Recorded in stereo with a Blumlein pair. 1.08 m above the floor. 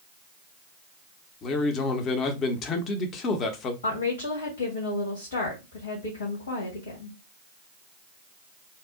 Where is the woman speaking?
65° left, 1.4 m.